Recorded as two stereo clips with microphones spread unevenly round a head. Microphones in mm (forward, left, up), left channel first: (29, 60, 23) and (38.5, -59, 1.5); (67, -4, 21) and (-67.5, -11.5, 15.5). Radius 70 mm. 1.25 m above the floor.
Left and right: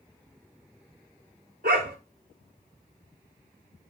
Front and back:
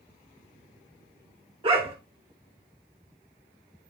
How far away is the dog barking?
About 2 m.